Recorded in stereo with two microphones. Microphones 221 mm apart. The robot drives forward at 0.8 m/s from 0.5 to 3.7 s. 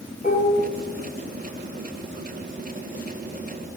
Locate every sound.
0.2 s dishes clattering: 35° left (ahead or behind), 1.6 m